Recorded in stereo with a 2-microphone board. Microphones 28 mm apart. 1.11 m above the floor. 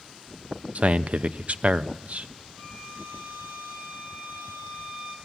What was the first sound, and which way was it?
A man speaking, 55° right (ahead or behind).